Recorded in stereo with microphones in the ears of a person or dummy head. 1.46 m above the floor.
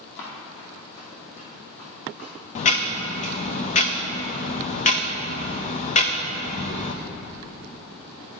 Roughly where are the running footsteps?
Left.